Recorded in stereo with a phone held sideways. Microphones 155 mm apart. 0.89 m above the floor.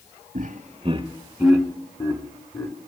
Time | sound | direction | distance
0.3 | laughter | 60° right (ahead or behind) | 1.2 m